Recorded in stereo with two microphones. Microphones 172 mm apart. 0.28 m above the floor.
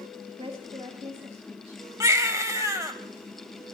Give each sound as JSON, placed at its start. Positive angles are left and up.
{"t": 0.4, "sound": "a woman speaking", "side_deg": -35, "distance_m": 1.3}
{"t": 2.0, "sound": "a baby crying", "side_deg": -20, "distance_m": 0.9}